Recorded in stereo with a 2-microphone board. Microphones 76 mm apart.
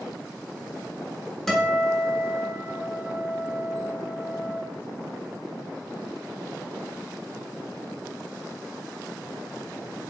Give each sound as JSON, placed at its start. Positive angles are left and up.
{"t": 1.5, "sound": "a guitar", "side_deg": 5, "distance_m": 1.0}